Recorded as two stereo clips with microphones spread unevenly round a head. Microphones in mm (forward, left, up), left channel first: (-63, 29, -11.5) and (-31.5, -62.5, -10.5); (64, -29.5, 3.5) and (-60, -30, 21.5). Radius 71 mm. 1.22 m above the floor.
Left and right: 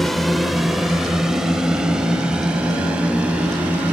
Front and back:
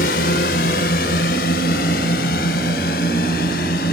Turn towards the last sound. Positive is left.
turn(degrees=10)